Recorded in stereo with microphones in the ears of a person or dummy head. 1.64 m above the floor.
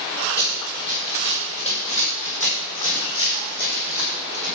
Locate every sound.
0.4 s running footsteps: 20° left (ahead or behind), 3.5 m; by 4.5 s 50° left (ahead or behind), 5 m